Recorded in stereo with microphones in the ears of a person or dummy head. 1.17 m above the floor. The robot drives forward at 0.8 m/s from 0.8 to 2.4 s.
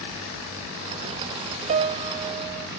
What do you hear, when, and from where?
1.7 s a piano: 35° right (ahead or behind), 0.6 m; by 2.7 s 20° right (ahead or behind), 1.1 m